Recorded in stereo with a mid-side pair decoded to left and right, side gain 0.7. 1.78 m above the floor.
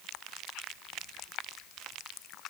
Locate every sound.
Only background noise.